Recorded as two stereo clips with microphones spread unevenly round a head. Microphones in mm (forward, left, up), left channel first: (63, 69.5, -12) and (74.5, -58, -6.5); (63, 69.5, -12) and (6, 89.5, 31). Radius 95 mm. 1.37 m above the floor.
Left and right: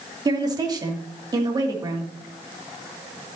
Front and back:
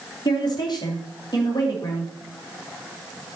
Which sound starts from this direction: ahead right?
A woman speaking, at 0.2 s.